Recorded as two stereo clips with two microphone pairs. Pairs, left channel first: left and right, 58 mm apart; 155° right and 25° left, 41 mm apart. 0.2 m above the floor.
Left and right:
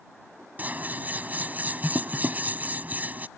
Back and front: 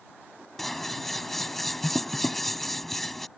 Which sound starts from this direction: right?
Scissors, at 0.6 s.